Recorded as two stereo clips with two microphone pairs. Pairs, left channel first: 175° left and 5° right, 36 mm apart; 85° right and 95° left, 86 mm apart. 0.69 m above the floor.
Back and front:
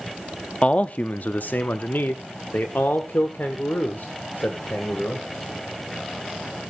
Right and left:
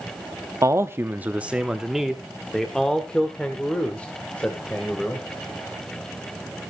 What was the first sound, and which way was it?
A man speaking, 130° left.